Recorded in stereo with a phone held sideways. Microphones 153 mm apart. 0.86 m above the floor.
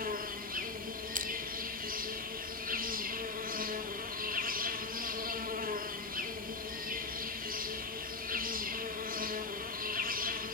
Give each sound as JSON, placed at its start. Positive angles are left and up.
{"t": 0.0, "sound": "an insect", "side_deg": -65, "distance_m": 3.0}
{"t": 1.1, "sound": "crushing", "side_deg": -60, "distance_m": 1.2}